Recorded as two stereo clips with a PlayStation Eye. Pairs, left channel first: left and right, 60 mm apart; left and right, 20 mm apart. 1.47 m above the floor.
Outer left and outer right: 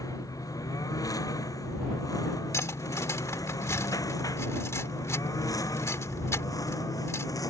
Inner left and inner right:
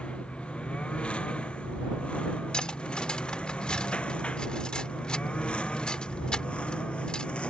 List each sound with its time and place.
0.0 s a lawn mower: 90° left; by 7.5 s 85° left
2.5 s cutlery clinking: 55° left (ahead or behind)